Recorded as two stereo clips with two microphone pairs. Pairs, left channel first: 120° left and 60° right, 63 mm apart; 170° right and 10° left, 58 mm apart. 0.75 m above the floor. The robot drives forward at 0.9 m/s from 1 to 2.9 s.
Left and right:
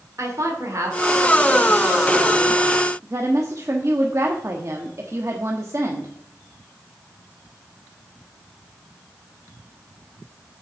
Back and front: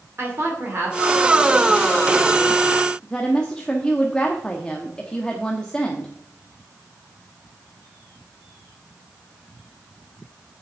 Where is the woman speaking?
30° right, 2.0 m; by 6.1 s 95° right, 1.1 m.